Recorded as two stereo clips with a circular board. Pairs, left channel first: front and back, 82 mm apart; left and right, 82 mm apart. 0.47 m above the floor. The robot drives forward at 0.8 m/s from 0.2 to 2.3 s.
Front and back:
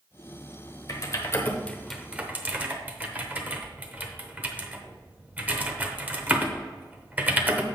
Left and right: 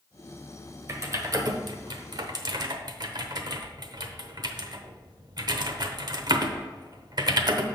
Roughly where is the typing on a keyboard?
Ahead right.